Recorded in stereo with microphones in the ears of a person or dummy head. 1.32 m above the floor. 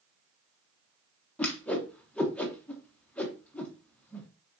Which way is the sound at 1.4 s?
10° left (ahead or behind).